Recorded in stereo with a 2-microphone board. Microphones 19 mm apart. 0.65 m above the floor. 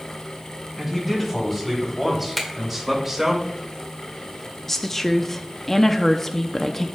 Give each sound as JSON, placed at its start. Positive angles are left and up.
{"t": 0.8, "sound": "a man speaking", "side_deg": -5, "distance_m": 3.5}
{"t": 2.4, "sound": "a finger snap", "side_deg": 10, "distance_m": 2.0}
{"t": 4.7, "sound": "a woman speaking", "side_deg": 20, "distance_m": 0.6}